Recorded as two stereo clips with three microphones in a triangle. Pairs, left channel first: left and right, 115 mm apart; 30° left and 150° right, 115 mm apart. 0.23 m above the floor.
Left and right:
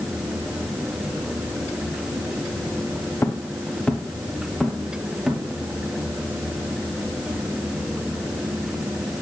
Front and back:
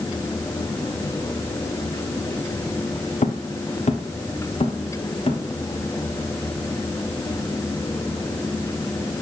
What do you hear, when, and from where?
3.2 s footsteps: 25° left, 1.0 m; by 5.4 s 5° right, 2 m